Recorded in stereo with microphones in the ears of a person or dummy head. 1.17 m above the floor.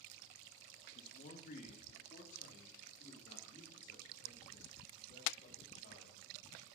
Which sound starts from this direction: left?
A man speaking, at 0.9 s.